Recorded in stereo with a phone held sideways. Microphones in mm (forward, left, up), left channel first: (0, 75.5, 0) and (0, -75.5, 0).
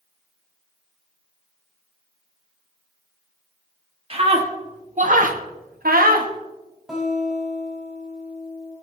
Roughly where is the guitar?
Centre.